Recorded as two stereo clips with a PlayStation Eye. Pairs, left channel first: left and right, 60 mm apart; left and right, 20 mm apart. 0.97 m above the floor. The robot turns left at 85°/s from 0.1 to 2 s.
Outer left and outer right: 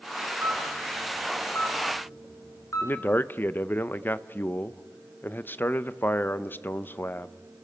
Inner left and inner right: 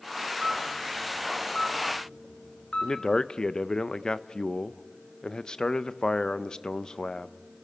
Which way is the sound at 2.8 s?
35° left (ahead or behind).